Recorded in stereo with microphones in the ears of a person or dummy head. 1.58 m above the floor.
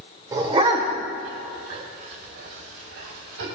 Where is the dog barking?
25° right (ahead or behind), 1.8 m; by 3.5 s 70° right (ahead or behind), 3.5 m.